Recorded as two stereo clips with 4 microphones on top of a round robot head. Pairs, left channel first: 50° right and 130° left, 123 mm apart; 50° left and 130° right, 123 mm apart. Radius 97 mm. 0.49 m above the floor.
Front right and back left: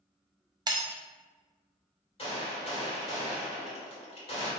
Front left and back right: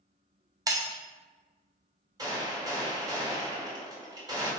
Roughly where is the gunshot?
Right.